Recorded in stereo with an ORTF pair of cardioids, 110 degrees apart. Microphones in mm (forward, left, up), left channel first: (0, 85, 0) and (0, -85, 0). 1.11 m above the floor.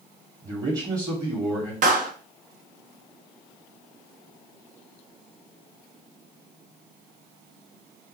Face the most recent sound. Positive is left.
turn(degrees=-50)